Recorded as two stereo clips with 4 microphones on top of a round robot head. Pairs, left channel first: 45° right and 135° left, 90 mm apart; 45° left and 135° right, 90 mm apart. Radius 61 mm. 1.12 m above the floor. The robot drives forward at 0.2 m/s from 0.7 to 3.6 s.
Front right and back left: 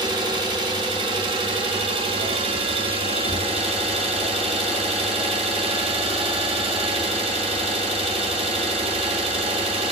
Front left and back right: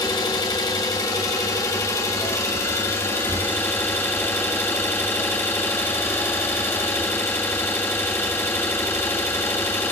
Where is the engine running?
95° left, 1.8 m; by 9.9 s 110° left, 1.9 m.